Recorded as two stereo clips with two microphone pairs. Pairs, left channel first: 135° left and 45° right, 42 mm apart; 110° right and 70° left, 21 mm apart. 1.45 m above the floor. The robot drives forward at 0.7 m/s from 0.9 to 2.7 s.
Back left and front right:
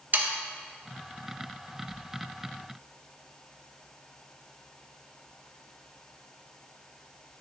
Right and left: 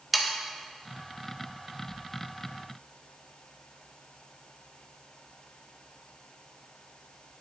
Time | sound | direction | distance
0.1 | sawing | 10° right | 1.0 m